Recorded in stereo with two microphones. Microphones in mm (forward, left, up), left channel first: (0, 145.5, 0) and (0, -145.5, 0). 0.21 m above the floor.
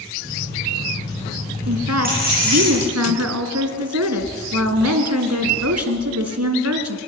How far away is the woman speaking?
About 2.5 m.